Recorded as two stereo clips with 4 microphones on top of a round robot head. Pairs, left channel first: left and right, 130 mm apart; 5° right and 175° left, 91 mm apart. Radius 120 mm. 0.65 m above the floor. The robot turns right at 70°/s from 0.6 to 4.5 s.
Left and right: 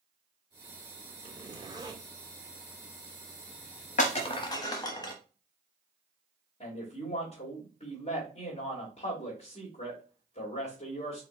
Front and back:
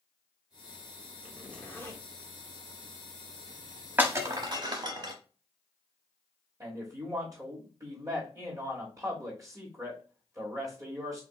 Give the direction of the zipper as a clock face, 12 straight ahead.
3 o'clock.